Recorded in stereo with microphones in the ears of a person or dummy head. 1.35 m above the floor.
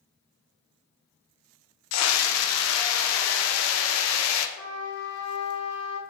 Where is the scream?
80° left, 0.6 m.